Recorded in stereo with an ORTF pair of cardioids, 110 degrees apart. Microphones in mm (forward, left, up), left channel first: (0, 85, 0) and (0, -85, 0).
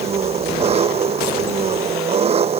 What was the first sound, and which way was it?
An engine running, 40° right.